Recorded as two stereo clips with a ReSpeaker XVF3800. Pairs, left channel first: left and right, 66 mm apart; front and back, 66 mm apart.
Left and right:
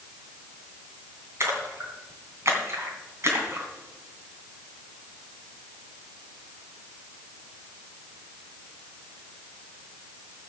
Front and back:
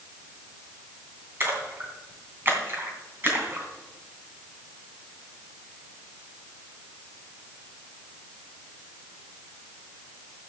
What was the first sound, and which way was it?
A splash, 130° right.